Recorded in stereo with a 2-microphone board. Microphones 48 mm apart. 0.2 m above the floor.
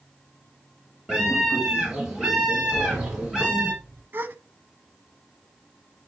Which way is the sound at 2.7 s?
70° right (ahead or behind).